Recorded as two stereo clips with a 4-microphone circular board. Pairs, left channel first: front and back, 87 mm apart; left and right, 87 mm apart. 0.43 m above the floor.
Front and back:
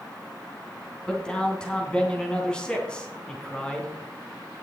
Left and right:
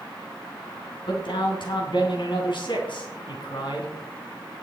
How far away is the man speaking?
About 3 m.